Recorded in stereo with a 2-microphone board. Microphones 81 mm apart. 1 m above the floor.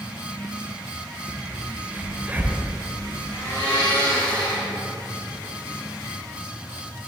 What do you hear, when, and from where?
1.3 s a crack: 20° right (ahead or behind), 0.8 m
3.3 s a blender: 85° left, 2 m